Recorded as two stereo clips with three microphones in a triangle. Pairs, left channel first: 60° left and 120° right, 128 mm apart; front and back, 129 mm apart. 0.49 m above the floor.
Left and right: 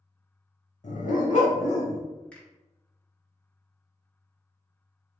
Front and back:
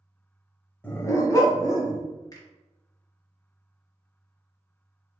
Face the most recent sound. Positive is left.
turn(degrees=-10)